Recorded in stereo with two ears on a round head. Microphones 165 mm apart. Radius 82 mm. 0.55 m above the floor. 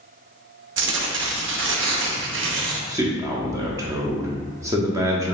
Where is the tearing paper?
75° right (ahead or behind), 0.6 m.